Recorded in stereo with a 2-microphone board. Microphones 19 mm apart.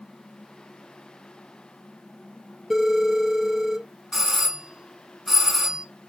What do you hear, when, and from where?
2.7 s a phone ringing: 5° right (ahead or behind), 1.9 m
4.1 s a doorbell: 15° right (ahead or behind), 1.5 m